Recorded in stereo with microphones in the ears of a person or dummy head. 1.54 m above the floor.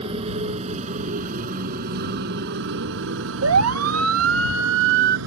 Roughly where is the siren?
Right.